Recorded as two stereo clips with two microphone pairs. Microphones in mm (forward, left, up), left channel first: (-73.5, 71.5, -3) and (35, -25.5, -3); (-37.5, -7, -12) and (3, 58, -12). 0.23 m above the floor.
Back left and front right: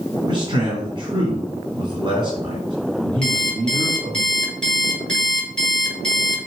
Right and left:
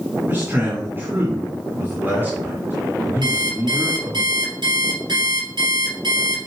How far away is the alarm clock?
About 3.5 m.